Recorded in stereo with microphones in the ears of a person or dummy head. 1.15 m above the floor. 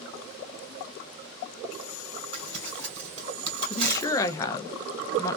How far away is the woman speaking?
About 0.6 m.